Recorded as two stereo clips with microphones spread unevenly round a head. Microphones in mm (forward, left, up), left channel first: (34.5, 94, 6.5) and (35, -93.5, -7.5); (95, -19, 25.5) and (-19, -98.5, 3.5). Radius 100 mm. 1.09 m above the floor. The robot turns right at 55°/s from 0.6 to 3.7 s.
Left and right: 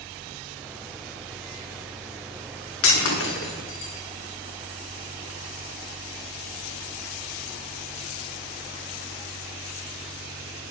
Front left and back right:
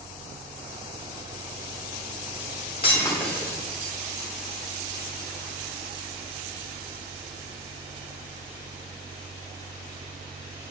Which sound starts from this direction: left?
Breaking glass, at 2.8 s.